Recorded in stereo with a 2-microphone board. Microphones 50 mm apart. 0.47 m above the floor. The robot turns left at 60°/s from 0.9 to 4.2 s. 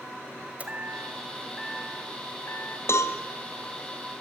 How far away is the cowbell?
About 2.0 m.